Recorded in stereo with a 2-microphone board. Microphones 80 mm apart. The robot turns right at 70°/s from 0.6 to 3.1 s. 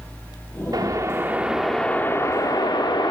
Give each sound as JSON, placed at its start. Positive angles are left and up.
{"t": 0.7, "sound": "a whoosh", "azimuth_deg": -65, "distance_m": 1.3}